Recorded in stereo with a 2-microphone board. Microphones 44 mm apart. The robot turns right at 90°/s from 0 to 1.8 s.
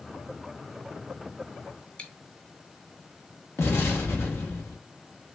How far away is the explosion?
About 1.0 m.